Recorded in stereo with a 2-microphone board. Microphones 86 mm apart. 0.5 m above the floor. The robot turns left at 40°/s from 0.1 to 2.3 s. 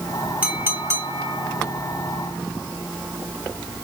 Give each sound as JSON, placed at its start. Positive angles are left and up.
{"t": 0.4, "sound": "a clink", "azimuth_deg": -20, "distance_m": 2.0}